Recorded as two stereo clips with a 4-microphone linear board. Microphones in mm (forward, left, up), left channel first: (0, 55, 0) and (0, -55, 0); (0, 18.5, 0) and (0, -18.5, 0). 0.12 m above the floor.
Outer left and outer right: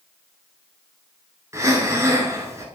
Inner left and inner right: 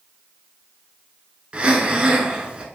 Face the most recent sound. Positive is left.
turn(degrees=-25)  # may be behind; listen again after turning